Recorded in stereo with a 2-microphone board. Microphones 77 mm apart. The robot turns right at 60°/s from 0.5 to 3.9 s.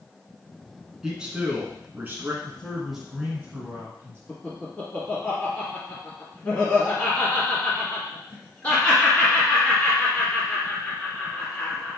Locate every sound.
1.0 s a man speaking: 5° right (ahead or behind), 1.1 m; by 2.3 s 25° right (ahead or behind), 1.1 m
2.4 s a man speaking: 160° left, 1.6 m; by 4.2 s 115° right, 1.6 m
4.3 s laughter: 20° left (ahead or behind), 1.3 m